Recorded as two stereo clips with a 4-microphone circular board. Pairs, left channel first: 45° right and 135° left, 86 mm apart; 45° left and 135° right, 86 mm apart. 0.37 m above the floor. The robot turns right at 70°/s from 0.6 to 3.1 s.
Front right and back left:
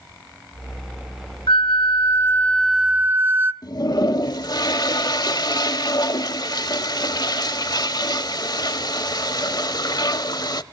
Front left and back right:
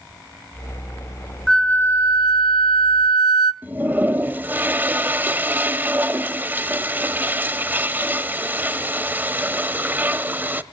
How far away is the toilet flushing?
About 0.8 m.